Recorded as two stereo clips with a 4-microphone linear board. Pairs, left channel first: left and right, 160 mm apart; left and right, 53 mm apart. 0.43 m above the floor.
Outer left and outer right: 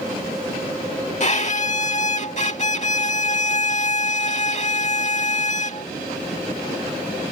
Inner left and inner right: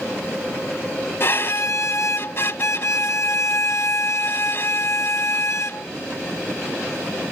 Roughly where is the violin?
Left.